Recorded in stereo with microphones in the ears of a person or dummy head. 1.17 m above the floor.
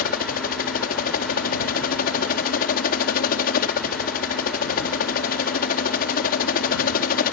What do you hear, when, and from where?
0.0 s a helicopter: 45° left (ahead or behind)